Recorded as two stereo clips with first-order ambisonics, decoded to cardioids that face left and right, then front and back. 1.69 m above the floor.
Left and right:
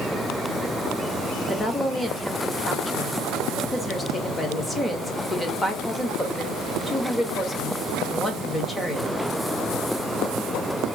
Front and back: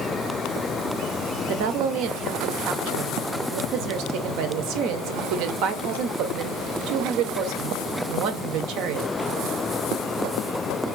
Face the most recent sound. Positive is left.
turn(degrees=170)